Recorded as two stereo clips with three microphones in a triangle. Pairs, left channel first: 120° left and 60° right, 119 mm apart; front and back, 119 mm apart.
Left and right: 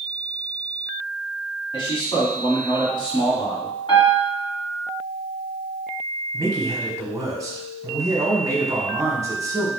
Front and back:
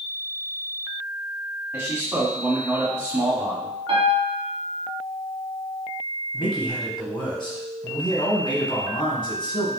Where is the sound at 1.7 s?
115° left, 1.9 m.